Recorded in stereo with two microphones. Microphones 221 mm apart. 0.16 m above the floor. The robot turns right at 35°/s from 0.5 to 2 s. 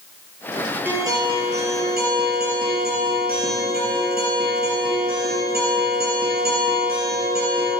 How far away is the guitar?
About 3.5 m.